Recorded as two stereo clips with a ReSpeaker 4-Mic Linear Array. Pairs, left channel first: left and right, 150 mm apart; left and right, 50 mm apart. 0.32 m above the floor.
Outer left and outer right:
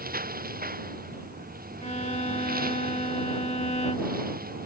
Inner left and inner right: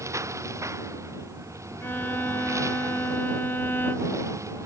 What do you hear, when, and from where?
0.0 s a lawn mower: 80° right
1.8 s a violin: 50° left (ahead or behind)